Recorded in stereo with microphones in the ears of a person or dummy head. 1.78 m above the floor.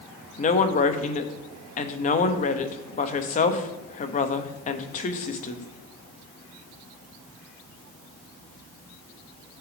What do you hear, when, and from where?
0.4 s a woman speaking: 35° left (ahead or behind), 0.7 m